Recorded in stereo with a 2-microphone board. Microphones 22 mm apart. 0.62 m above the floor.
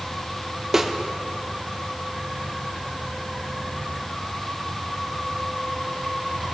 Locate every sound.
0.7 s a snare drum: 15° right (ahead or behind), 0.7 m